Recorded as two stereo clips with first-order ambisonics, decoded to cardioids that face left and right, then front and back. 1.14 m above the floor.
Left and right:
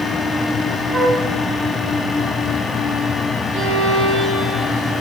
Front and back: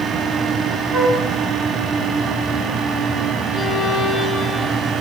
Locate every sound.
0.9 s a flute: 150° right, 3.5 m
3.5 s a violin: 65° right, 3.5 m